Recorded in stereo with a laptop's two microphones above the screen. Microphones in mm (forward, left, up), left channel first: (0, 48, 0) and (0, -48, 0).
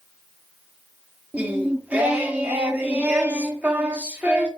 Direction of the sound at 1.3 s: 15° right (ahead or behind).